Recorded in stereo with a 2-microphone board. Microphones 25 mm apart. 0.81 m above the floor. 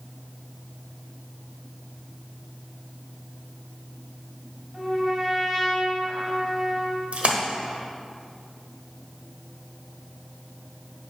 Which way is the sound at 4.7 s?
15° right (ahead or behind).